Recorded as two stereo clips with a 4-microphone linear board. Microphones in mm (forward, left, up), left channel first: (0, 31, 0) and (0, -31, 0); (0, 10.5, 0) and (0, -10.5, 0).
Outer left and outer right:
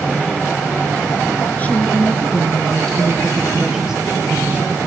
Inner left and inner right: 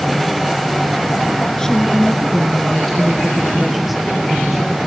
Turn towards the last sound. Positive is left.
turn(degrees=-20)  # may be behind; listen again after turning